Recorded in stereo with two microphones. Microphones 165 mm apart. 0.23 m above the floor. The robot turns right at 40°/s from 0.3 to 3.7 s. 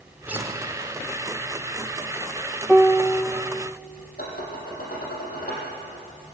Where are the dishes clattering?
65° left (ahead or behind), 6 m.